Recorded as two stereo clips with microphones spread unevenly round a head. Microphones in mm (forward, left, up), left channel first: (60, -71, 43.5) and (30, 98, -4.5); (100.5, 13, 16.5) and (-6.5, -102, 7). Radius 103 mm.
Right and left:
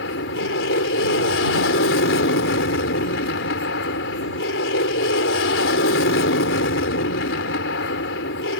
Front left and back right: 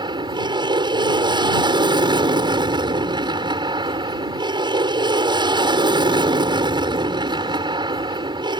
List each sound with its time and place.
0.0 s an aircraft: 75° right